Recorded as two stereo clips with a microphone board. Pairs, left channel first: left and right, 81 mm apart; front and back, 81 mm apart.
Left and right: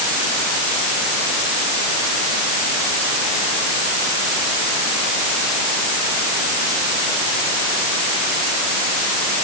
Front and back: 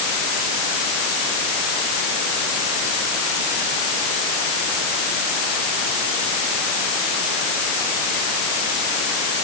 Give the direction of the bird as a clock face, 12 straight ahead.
I don't hear a bird.